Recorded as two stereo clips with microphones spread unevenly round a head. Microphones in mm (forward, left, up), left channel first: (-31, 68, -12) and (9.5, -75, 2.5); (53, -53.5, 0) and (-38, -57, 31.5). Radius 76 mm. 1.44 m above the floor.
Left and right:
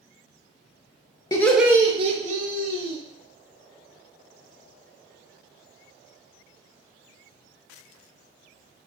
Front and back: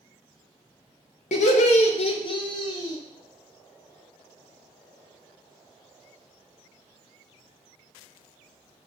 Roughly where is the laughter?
Ahead left.